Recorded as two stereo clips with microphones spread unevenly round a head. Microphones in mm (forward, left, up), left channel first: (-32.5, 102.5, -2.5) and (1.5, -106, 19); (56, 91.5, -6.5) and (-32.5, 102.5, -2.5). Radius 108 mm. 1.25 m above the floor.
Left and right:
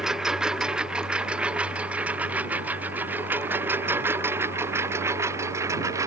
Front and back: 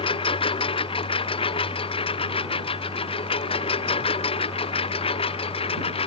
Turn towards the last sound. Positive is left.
turn(degrees=-5)